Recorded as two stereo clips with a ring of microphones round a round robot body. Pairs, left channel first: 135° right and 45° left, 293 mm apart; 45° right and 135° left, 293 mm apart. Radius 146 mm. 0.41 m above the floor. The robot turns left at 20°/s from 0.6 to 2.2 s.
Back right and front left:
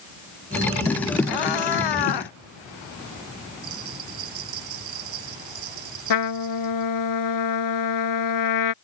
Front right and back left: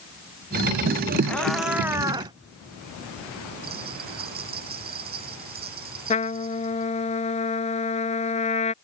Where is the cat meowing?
130° right; by 2.3 s 150° right.